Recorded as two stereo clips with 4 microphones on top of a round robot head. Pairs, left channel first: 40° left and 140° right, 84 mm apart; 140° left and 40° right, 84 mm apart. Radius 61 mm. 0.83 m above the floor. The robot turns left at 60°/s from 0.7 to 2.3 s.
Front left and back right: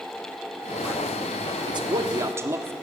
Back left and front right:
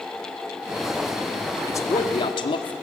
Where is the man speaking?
160° right, 1.8 m; by 2.7 s 160° left, 1.8 m.